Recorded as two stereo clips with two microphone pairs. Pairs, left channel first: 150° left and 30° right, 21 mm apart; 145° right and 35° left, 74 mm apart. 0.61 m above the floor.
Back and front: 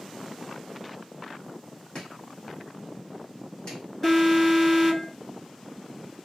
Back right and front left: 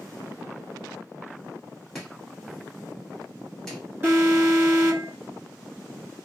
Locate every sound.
1.9 s chopping: 140° left, 1.6 m
4.0 s an alarm: 80° left, 2 m